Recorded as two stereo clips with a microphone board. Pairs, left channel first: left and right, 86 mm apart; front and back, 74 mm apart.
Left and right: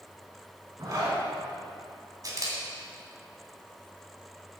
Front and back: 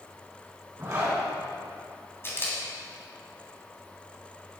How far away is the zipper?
About 3.5 m.